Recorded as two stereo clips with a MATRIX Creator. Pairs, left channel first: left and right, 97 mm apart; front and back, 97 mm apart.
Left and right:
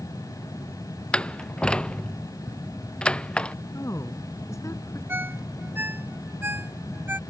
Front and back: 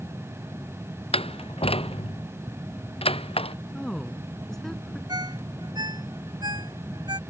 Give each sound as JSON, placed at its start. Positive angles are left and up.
{"t": 1.1, "sound": "a door slam", "azimuth_deg": 10}
{"t": 3.7, "sound": "a woman speaking", "azimuth_deg": 80}
{"t": 5.1, "sound": "a ringtone", "azimuth_deg": -155}